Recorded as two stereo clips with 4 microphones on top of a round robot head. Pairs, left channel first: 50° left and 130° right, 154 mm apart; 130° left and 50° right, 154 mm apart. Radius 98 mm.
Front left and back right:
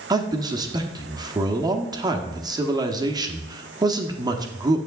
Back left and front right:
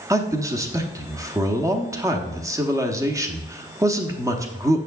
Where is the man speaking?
95° right, 0.9 m.